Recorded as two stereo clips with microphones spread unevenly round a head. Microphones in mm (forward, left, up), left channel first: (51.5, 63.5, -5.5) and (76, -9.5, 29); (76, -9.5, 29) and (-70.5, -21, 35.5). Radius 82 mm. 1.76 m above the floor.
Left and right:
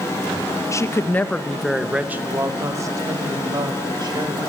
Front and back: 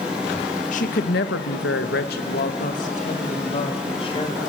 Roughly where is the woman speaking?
Ahead left.